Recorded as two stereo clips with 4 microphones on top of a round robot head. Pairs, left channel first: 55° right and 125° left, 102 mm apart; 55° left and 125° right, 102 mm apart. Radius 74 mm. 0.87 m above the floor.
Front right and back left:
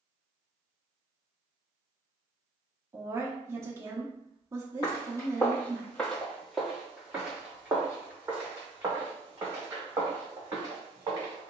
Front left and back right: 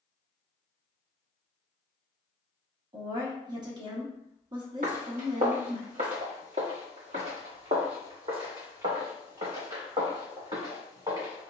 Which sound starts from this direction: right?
Footsteps, at 4.8 s.